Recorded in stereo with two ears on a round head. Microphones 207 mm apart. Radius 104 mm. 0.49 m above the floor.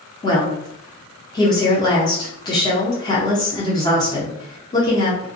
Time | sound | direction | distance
0.2 | a woman speaking | 20° left (ahead or behind) | 0.7 m